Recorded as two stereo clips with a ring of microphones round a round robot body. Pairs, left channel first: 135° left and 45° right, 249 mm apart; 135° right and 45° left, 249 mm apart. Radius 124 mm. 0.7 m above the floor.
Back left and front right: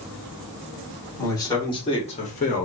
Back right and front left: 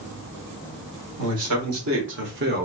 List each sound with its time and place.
1.2 s a man speaking: 60° left, 1.7 m; by 2.7 s 90° left, 1.2 m